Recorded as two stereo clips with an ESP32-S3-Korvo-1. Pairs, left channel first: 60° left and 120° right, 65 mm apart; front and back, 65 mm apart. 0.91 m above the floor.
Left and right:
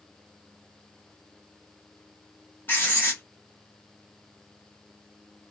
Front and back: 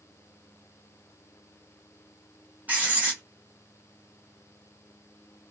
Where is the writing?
115° left, 1.3 m.